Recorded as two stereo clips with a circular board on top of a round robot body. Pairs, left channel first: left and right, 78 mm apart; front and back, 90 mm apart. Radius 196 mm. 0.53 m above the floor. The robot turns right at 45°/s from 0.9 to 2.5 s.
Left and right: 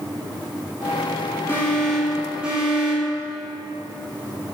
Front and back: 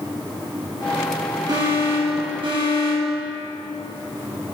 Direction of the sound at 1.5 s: 150° left.